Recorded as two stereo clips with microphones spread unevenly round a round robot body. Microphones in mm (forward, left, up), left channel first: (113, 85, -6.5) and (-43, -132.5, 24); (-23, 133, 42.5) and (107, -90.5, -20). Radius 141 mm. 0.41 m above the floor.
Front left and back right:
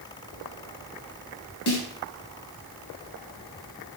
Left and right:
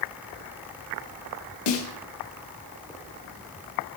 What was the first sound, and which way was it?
A snare drum, 105° left.